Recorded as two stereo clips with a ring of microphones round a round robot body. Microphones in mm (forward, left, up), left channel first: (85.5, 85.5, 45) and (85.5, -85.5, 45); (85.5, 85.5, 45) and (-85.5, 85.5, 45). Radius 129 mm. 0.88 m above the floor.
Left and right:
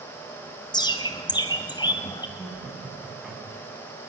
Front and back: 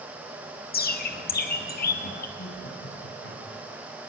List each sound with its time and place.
0.7 s a bird: 25° left, 2 m
2.4 s laughter: 5° right, 8 m